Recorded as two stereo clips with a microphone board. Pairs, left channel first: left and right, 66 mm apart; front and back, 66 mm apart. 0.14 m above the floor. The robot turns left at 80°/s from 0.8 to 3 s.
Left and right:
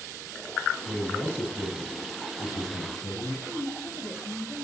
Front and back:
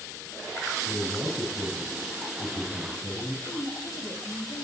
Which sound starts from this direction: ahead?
A woman speaking, at 3.5 s.